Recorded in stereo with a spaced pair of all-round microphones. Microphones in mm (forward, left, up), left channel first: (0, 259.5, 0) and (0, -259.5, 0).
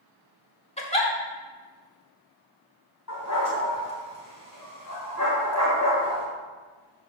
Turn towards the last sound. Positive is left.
turn(degrees=35)  # may be behind; listen again after turning